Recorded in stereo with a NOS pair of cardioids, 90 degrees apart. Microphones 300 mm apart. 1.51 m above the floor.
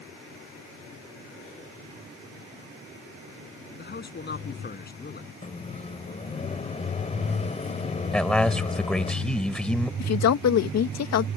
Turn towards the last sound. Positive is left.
turn(degrees=60)